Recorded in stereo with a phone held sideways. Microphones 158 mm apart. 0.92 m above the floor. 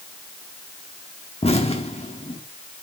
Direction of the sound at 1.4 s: 40° left (ahead or behind).